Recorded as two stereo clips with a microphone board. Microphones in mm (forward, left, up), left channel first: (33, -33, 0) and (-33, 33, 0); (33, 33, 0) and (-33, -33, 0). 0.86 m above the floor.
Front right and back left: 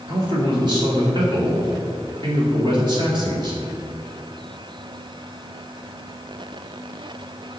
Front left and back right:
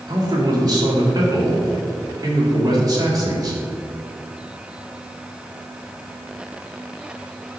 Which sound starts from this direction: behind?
A man speaking, at 0.1 s.